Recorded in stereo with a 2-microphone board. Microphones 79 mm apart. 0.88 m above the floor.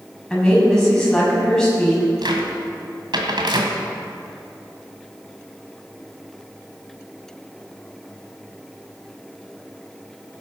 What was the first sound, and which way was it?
A woman speaking, 5° left (ahead or behind).